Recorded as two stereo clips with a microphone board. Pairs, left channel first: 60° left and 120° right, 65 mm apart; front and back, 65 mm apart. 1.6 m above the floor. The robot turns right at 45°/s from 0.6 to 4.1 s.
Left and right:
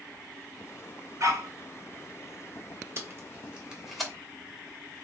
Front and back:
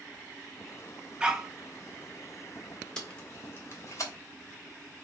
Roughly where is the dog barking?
Behind right.